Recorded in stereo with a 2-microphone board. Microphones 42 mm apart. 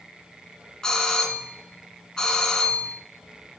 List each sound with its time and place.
0.8 s a doorbell: 15° left (ahead or behind), 1.5 m